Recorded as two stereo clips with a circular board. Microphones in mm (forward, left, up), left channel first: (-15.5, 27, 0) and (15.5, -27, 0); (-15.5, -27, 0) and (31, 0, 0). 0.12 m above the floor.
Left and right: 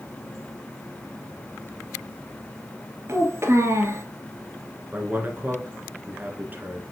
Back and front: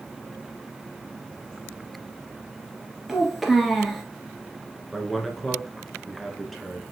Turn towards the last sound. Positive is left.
turn(degrees=-60)